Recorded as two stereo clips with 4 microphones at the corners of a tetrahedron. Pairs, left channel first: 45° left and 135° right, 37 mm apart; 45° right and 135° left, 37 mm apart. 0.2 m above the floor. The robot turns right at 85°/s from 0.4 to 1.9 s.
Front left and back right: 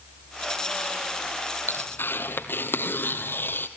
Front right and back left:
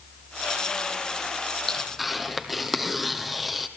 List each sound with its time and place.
1.7 s tearing paper: 30° left, 1.7 m; by 3.7 s 50° left, 1.7 m